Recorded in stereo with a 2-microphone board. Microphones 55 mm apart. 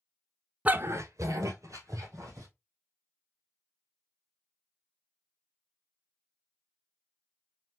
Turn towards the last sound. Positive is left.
turn(degrees=-70)  # may be behind; listen again after turning